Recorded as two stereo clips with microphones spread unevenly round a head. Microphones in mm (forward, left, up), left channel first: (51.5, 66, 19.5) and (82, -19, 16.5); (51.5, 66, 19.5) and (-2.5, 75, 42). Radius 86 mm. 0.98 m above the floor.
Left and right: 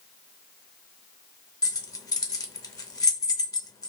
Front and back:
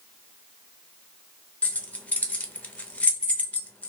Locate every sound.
1.6 s keys jangling: 60° left, 0.7 m